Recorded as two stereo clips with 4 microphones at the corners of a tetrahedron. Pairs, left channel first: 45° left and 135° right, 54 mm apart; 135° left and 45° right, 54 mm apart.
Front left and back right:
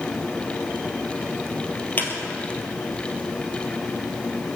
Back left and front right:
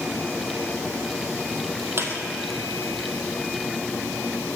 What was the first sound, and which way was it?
A squeak, 5° right.